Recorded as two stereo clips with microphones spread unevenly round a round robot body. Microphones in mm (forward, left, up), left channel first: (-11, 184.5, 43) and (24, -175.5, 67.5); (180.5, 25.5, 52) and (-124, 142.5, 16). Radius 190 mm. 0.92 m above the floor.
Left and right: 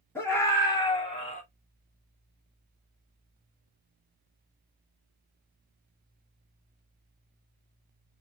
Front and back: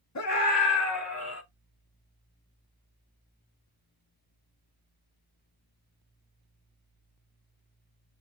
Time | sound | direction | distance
0.1 | a scream | 15° left | 3 m